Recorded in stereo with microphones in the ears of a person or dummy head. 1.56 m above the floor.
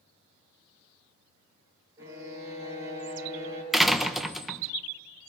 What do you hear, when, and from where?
2.0 s a violin: 15° right (ahead or behind), 7.5 m
3.7 s a door slam: centre (ahead or behind), 1.0 m